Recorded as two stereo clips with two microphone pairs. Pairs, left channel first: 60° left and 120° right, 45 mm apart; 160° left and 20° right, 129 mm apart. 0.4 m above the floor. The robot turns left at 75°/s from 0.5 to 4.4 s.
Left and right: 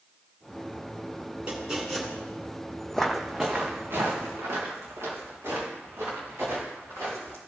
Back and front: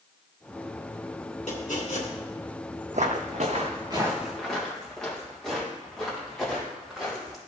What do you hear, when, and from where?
1.5 s chopping: straight behind, 2.5 m; by 2.1 s 135° left, 2.5 m
2.9 s footsteps: 15° right, 0.7 m; by 7.4 s 115° right, 6.5 m